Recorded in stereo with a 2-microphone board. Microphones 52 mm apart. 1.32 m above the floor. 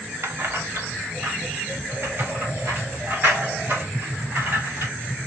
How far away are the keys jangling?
About 0.7 m.